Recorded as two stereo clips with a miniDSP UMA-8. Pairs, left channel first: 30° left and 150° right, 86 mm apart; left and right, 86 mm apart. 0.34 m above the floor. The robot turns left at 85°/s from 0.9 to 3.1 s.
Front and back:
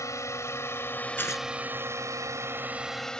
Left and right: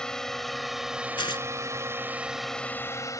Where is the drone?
10° left; by 3.2 s 110° left.